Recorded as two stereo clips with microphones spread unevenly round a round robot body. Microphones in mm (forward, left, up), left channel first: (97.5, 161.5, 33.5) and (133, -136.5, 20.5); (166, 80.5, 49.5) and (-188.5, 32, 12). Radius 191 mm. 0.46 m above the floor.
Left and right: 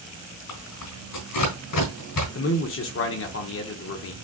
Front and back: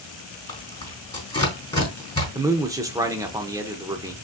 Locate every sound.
0.5 s tearing paper: 85° left, 3.5 m
2.4 s a man speaking: 120° left, 0.9 m